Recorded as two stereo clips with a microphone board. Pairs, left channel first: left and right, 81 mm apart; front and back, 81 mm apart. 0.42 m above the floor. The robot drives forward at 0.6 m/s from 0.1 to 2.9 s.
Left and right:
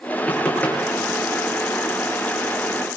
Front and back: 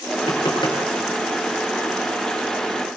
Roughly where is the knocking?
Ahead.